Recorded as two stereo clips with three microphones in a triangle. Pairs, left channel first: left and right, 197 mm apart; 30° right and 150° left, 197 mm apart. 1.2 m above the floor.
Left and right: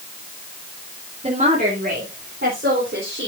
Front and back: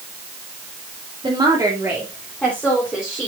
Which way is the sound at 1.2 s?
145° right.